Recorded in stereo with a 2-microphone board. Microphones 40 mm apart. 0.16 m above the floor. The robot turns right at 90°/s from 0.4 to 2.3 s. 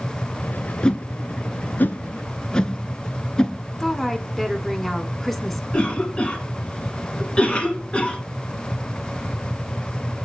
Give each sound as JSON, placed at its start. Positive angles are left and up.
{"t": 0.8, "sound": "a whoosh", "side_deg": 20, "distance_m": 0.6}
{"t": 3.8, "sound": "a woman speaking", "side_deg": 5, "distance_m": 1.2}
{"t": 5.7, "sound": "a cough", "side_deg": 30, "distance_m": 1.2}